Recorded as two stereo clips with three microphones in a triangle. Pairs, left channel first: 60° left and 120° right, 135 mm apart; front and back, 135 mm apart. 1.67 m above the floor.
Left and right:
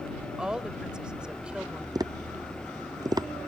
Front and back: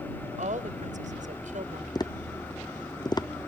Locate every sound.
0.4 s a woman speaking: 155° left
1.9 s tapping: 60° right